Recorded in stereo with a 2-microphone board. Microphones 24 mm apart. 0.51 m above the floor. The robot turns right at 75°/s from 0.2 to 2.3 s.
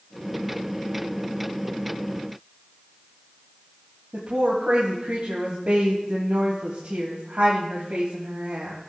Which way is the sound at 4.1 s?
70° right (ahead or behind).